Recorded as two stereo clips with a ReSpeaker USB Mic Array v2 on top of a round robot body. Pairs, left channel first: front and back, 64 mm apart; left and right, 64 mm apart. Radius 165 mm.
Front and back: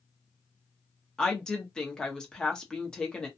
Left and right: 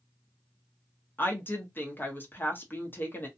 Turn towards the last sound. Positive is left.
turn(degrees=70)